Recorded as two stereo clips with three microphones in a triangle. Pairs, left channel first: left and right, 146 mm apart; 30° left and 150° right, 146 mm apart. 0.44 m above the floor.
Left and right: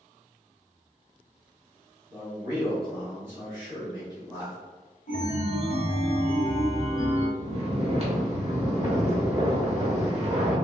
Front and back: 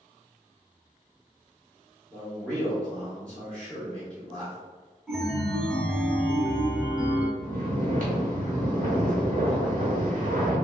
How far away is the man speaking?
About 1.2 m.